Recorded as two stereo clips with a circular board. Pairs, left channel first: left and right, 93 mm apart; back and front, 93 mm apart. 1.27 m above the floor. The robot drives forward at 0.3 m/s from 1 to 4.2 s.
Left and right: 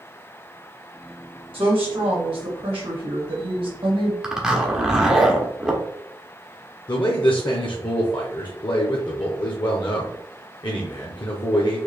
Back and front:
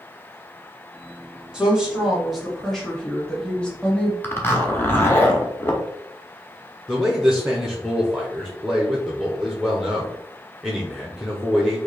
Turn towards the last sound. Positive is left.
turn(degrees=90)